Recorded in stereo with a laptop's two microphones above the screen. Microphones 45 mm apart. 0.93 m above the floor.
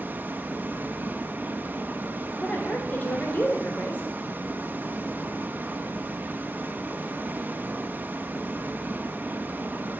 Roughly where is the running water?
Right.